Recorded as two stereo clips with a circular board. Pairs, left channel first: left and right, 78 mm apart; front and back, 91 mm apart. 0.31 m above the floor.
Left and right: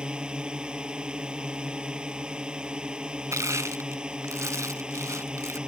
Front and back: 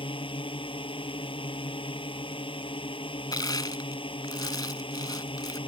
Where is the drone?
10° right.